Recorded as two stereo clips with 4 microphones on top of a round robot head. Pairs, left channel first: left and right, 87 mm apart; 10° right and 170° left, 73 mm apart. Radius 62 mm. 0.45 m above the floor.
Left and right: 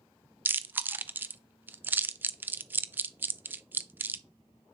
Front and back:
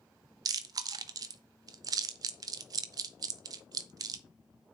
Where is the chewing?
155° right, 0.5 m.